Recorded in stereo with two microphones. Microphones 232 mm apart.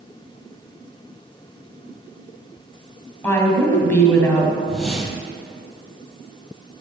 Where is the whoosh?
Centre (ahead or behind), 1.0 m.